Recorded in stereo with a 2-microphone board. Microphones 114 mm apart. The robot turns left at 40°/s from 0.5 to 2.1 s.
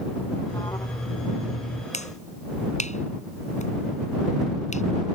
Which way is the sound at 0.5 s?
155° left.